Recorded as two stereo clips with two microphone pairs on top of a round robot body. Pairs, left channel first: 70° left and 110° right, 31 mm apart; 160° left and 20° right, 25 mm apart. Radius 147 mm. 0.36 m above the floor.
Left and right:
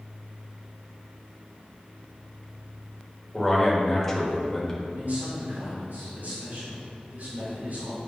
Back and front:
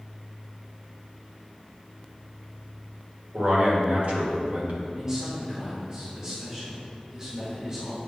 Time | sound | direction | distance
3.3 | a man speaking | 5° right | 2.5 m
5.0 | a man speaking | 85° right | 2.5 m